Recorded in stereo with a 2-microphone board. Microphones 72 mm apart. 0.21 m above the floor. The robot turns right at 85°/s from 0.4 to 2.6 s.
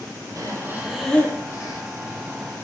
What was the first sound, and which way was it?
Breathing, 50° right.